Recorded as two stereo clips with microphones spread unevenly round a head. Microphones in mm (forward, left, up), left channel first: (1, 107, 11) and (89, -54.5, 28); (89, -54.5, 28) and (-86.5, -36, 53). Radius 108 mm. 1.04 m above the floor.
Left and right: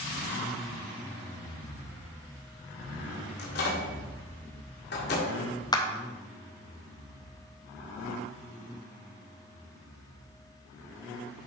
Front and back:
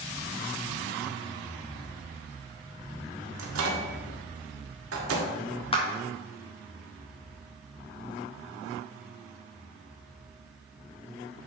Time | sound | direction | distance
3.4 | a microwave | 165° left | 1.7 m
5.7 | a clap | 50° left | 1.3 m